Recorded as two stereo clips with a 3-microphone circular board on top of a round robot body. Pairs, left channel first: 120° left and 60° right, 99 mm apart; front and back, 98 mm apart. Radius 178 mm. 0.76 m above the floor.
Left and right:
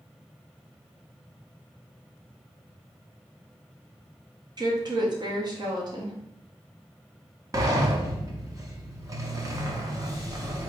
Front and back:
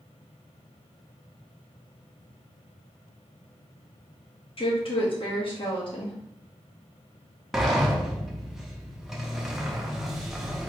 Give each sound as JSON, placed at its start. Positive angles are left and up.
{"t": 4.6, "sound": "a woman speaking", "azimuth_deg": -20, "distance_m": 1.4}
{"t": 7.5, "sound": "a sliding door", "azimuth_deg": -95, "distance_m": 1.1}